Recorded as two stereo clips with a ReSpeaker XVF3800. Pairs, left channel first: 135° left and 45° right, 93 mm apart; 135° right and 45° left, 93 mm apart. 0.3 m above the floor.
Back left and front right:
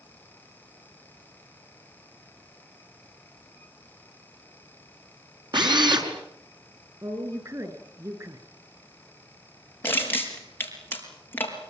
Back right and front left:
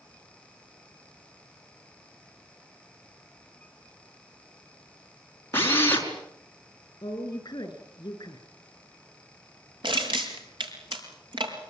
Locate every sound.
5.5 s a drill: 70° right, 4.5 m
7.0 s a woman speaking: 95° right, 5 m
9.8 s crushing: 70° left, 4.5 m